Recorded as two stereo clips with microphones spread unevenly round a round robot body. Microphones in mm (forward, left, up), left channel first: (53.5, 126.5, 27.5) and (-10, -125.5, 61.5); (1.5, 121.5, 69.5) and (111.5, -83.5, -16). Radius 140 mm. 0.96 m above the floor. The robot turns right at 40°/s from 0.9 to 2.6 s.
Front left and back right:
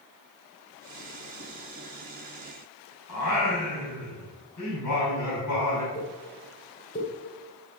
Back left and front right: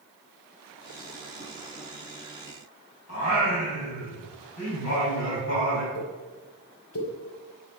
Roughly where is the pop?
Behind left.